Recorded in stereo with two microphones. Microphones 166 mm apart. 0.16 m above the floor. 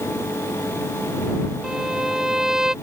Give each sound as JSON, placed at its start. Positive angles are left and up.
{"t": 1.6, "sound": "a violin", "side_deg": -5}